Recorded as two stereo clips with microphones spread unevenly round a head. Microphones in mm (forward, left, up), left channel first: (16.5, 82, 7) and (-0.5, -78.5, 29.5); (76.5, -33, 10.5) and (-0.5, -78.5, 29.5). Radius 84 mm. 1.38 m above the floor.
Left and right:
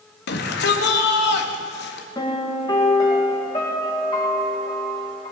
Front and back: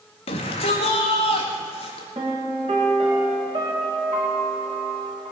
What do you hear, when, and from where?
0.3 s a shout: 60° left, 1.9 m
2.1 s a piano: 150° left, 2 m